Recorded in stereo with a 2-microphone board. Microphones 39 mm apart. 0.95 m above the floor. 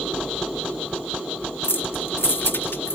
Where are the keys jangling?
70° left (ahead or behind).